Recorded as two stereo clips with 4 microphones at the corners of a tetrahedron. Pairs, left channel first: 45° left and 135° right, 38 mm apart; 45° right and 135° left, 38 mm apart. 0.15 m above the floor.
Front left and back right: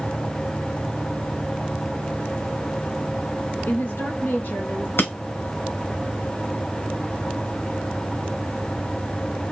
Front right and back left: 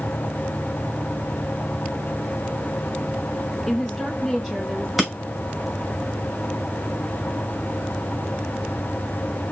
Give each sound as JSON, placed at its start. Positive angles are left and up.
{"t": 3.7, "sound": "a woman speaking", "azimuth_deg": 40, "distance_m": 3.0}
{"t": 5.0, "sound": "breaking glass", "azimuth_deg": 55, "distance_m": 2.5}